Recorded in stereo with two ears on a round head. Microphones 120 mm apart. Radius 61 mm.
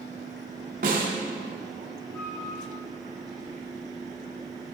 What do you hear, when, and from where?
0.8 s a snare drum: 65° right (ahead or behind), 2.5 m
2.1 s a flute: 20° left (ahead or behind), 4.5 m